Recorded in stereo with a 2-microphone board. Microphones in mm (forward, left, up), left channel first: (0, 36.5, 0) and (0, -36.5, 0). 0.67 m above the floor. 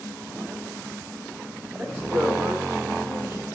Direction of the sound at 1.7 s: 20° right (ahead or behind).